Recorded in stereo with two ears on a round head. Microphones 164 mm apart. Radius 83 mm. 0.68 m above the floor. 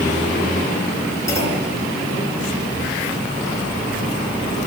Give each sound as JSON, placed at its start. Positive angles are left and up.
{"t": 1.3, "sound": "a clunk", "side_deg": 20, "distance_m": 7.5}